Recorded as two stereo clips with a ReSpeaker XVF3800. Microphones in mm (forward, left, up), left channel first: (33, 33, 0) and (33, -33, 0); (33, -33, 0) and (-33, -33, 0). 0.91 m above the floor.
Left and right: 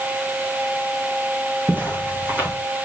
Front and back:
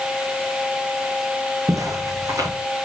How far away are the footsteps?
About 2.5 m.